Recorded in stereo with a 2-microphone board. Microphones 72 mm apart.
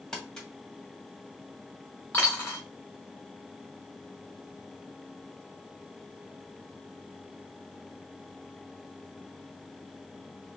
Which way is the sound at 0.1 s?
10° left (ahead or behind).